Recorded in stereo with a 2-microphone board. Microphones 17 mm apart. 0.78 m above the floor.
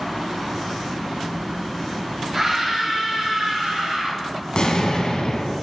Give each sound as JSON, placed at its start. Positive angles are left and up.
{"t": 2.3, "sound": "a scream", "side_deg": -25, "distance_m": 2.0}
{"t": 4.5, "sound": "an explosion", "side_deg": 55, "distance_m": 1.1}